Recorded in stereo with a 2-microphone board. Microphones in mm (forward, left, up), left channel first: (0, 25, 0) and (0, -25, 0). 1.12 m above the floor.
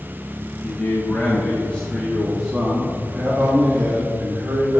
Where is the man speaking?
45° left (ahead or behind), 1.7 m; by 4.8 s 60° right (ahead or behind), 2 m.